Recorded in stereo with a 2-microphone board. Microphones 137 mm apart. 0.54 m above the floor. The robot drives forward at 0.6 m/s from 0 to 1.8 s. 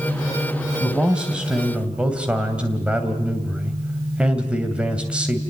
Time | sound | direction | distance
0.8 | a man speaking | 5° right (ahead or behind) | 3 m